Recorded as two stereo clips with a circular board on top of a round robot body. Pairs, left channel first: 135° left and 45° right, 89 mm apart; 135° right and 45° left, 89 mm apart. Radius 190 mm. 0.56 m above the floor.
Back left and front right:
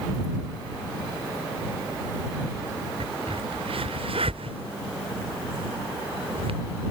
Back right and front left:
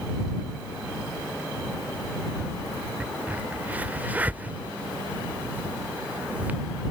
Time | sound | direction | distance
3.0 | a crack | 30° right | ?